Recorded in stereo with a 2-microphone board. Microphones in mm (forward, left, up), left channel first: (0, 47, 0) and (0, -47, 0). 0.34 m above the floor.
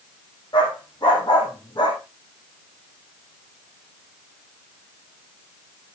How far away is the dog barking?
About 5 m.